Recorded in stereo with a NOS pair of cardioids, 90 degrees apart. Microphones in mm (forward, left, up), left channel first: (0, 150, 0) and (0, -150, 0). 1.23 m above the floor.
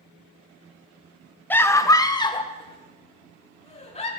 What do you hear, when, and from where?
1.5 s a scream: 5° left, 0.9 m; by 4.1 s 20° left, 2.5 m